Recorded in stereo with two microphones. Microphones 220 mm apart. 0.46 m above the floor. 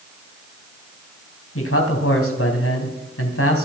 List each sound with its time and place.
1.6 s a man speaking: 70° left (ahead or behind), 4 m